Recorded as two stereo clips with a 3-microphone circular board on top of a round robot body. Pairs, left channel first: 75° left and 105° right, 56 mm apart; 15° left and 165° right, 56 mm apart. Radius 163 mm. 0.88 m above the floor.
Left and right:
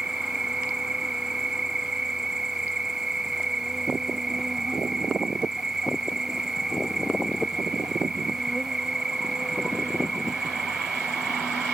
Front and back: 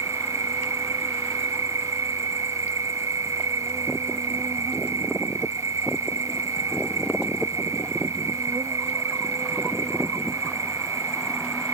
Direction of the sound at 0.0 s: 175° left.